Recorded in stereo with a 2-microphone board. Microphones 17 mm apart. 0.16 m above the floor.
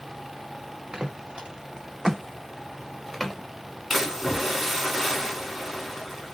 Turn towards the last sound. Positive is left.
turn(degrees=-15)  # may be behind; listen again after turning